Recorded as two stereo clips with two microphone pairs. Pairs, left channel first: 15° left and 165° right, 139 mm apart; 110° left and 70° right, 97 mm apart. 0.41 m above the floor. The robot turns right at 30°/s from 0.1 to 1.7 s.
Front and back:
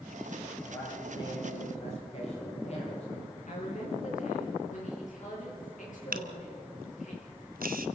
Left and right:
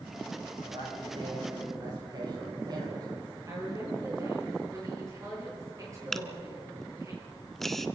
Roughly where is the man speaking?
Ahead right.